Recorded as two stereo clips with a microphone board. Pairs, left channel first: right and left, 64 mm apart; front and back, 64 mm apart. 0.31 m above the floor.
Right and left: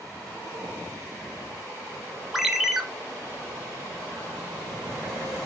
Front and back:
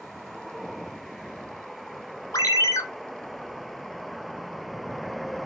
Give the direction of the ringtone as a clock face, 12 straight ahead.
12 o'clock.